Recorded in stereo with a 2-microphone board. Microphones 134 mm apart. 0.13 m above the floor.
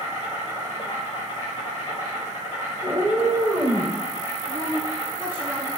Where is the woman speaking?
15° right (ahead or behind), 1.6 m.